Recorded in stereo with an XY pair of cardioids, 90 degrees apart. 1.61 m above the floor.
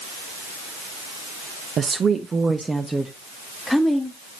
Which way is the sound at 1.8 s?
55° right.